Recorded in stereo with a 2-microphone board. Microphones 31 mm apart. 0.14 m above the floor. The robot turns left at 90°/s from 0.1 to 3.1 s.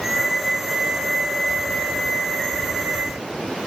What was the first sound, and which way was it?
Only background noise.